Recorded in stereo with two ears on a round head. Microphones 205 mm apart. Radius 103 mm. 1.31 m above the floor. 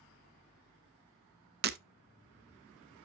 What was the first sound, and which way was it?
Breaking glass, 45° right (ahead or behind).